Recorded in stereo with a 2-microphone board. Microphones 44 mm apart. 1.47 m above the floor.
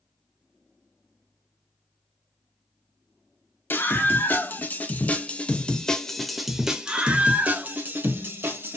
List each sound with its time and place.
3.7 s a scream: 55° left (ahead or behind), 1.8 m; by 8.8 s 55° right (ahead or behind), 1.6 m